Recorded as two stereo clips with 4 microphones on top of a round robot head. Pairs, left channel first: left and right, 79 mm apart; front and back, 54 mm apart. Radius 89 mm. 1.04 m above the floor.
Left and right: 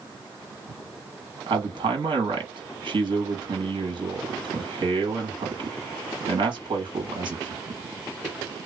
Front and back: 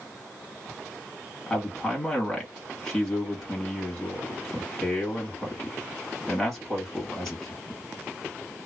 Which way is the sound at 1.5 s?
80° right.